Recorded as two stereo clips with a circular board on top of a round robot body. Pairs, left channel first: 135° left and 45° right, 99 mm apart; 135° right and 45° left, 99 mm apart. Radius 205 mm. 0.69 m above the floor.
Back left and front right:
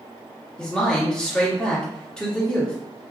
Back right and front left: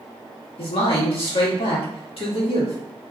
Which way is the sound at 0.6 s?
145° right.